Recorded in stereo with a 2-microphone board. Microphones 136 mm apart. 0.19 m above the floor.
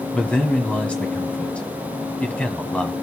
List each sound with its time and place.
0.1 s a man speaking: 10° left (ahead or behind), 1.1 m